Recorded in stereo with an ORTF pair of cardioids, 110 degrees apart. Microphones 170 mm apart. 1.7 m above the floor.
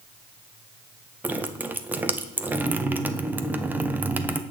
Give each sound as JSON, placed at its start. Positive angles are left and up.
{"t": 1.2, "sound": "dripping", "azimuth_deg": -10, "distance_m": 0.6}